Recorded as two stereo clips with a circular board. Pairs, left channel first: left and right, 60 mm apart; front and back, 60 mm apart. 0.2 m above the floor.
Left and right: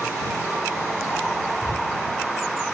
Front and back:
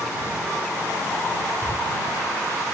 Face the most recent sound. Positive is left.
turn(degrees=40)